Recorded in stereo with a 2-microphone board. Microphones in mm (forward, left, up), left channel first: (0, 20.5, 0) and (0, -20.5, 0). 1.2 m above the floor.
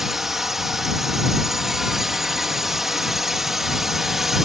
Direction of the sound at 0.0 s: 10° right (ahead or behind).